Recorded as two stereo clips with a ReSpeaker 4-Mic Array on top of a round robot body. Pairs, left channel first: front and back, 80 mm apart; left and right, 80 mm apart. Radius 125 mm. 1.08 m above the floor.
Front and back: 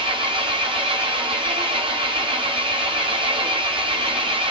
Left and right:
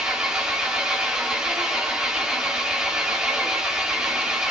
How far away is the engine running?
About 1.0 m.